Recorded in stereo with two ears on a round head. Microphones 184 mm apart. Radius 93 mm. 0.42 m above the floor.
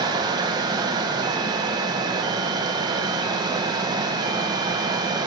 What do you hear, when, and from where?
0.0 s running water: 20° right (ahead or behind), 1.1 m